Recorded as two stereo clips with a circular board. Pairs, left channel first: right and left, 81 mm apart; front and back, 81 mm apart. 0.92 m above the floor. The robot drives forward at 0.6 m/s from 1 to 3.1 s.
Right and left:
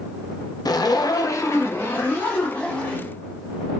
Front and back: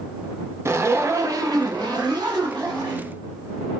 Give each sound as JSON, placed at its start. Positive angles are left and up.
{"t": 0.7, "sound": "a zipper", "azimuth_deg": -125, "distance_m": 0.6}